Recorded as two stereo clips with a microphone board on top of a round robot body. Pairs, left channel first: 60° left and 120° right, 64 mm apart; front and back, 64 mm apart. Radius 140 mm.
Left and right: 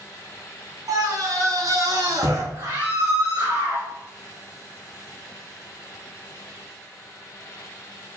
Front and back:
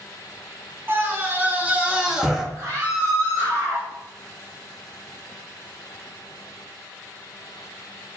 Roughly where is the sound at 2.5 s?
Behind right.